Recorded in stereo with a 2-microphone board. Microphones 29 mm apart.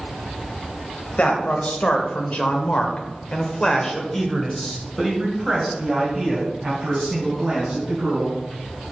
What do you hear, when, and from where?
1.2 s a man speaking: 55° left (ahead or behind), 1.8 m; by 8.4 s 15° right (ahead or behind), 4 m